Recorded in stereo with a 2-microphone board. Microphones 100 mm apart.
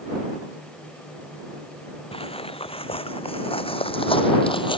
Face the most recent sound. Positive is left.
turn(degrees=60)  # may be behind; listen again after turning